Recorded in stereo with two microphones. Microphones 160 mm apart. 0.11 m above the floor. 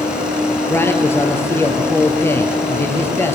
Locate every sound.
0.7 s a man speaking: 15° left (ahead or behind), 2.5 m